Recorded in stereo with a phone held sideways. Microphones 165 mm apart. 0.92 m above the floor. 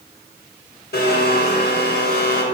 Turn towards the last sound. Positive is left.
turn(degrees=75)  # may be behind; listen again after turning